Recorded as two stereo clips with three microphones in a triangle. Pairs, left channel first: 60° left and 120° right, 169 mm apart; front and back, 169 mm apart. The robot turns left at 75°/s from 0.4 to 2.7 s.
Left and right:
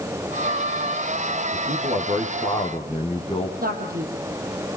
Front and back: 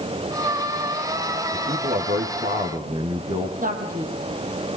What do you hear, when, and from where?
1.5 s a man speaking: 125° right, 5 m; by 3.5 s 145° left, 5 m
3.6 s a man speaking: 145° right, 6.5 m